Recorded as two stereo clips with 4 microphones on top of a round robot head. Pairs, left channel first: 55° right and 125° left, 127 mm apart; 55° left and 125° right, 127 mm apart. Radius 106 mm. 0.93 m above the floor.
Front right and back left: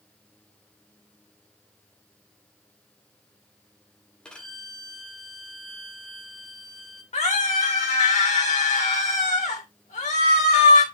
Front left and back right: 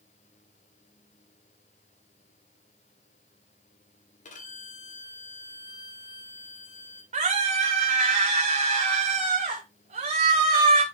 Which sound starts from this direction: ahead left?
A violin, at 4.2 s.